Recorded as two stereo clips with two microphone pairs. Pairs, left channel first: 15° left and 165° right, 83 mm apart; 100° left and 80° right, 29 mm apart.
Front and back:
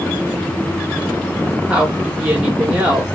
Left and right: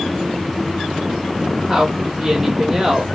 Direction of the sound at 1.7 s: 105° right.